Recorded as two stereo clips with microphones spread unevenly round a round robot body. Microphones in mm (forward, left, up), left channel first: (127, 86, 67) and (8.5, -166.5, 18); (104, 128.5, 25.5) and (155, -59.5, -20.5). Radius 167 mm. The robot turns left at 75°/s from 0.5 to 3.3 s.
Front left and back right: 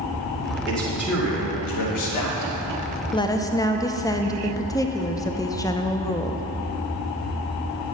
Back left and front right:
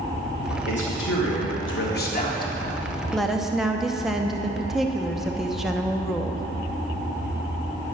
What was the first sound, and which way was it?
A man speaking, 165° left.